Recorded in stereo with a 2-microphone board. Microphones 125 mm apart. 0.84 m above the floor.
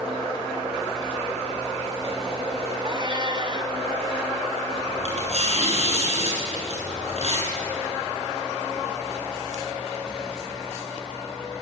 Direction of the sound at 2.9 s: 40° right (ahead or behind).